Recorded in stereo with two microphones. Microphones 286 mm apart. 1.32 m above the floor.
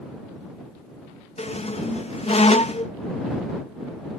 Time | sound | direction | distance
1.4 | a squeak | 20° left (ahead or behind) | ?